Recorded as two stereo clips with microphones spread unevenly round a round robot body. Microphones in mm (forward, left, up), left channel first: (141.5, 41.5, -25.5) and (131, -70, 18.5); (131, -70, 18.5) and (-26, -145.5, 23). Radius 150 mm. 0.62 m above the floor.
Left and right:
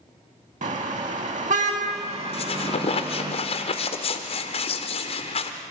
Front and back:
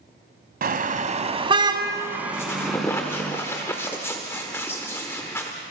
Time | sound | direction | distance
0.6 | a car horn | 120° right | 2 m
2.3 | a squeak | 105° left | 1.0 m